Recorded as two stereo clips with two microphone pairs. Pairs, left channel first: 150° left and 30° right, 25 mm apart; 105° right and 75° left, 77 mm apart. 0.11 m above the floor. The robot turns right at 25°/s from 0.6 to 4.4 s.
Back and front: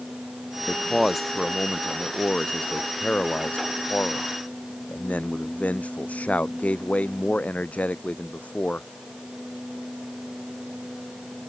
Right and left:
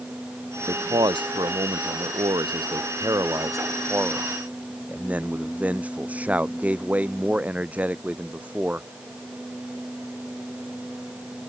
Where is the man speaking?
55° left; by 8.9 s 150° left.